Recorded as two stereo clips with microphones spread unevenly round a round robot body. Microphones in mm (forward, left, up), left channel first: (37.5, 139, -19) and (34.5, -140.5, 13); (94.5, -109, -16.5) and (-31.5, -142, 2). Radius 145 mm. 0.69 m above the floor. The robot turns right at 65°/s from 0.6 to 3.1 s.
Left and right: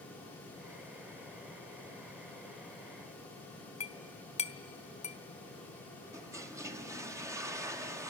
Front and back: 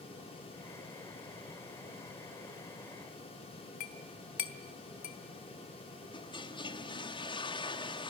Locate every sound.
3.8 s a clink: 20° left, 1.3 m
6.1 s a toilet flushing: 10° right, 1.4 m